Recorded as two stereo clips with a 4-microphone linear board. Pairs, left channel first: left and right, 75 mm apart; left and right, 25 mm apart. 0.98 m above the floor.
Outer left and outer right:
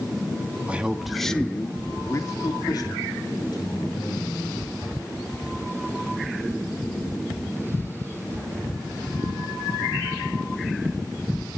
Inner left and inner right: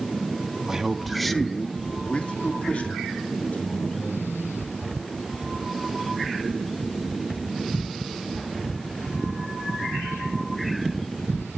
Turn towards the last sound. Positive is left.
turn(degrees=80)